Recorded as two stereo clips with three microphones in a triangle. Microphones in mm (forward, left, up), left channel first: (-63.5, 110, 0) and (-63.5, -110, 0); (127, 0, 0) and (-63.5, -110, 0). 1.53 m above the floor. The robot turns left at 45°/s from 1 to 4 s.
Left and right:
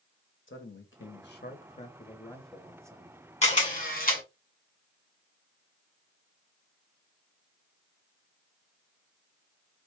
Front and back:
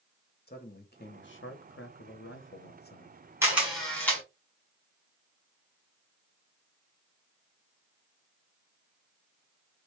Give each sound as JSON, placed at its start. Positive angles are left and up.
{"t": 0.5, "sound": "a man speaking", "azimuth_deg": 70, "distance_m": 1.0}
{"t": 3.4, "sound": "a camera shutter", "azimuth_deg": 135, "distance_m": 1.5}